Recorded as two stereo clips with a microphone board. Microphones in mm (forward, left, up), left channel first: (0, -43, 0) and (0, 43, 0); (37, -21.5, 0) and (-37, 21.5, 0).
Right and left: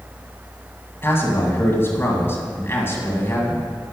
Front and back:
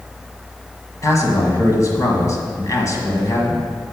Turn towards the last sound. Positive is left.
turn(degrees=-45)